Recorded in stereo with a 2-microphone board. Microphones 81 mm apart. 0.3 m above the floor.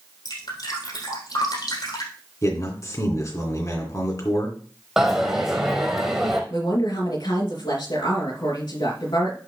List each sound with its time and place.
0.2 s dripping: 60° left (ahead or behind), 4 m
2.4 s a man speaking: 40° left (ahead or behind), 3 m
5.0 s a dropped coin: 5° right (ahead or behind), 2 m
6.5 s a woman speaking: 65° left (ahead or behind), 3.5 m